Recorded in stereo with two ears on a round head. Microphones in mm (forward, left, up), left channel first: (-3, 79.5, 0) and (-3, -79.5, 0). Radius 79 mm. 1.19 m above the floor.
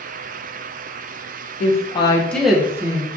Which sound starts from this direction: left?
A woman speaking, at 1.6 s.